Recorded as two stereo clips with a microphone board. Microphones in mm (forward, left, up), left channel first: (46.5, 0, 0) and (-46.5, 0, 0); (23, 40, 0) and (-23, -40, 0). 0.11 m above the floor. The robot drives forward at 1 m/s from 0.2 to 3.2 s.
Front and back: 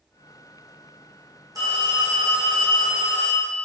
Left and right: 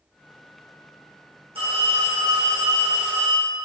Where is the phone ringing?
130° right, 4 m; by 3.7 s 145° right, 5.5 m.